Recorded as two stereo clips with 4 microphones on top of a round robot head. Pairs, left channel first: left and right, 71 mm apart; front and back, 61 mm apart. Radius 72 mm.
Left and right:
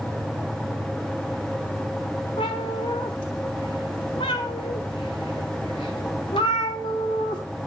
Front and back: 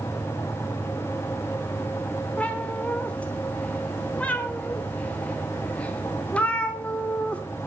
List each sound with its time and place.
2.4 s a cat meowing: 65° left, 1.0 m